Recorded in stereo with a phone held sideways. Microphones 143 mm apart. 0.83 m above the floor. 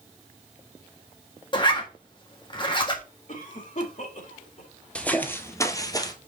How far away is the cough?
About 2 m.